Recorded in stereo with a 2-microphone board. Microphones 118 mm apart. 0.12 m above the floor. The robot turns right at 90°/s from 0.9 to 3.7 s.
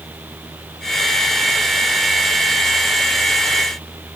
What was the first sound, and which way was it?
Only background noise.